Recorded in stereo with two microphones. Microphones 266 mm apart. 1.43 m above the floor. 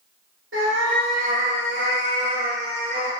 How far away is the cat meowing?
About 2 m.